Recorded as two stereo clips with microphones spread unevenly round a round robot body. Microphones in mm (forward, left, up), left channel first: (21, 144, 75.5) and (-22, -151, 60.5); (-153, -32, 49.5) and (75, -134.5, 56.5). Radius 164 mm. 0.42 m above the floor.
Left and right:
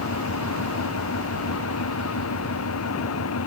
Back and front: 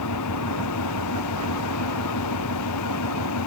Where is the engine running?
125° left.